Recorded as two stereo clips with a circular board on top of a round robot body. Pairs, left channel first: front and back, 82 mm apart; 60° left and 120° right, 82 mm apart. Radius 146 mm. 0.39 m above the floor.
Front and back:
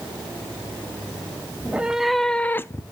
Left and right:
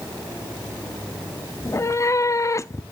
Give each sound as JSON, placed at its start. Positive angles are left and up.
{"t": 1.6, "sound": "a cat meowing", "azimuth_deg": 110, "distance_m": 0.8}